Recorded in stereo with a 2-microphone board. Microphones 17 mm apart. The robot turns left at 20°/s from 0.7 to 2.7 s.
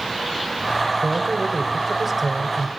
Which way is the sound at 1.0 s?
15° right (ahead or behind).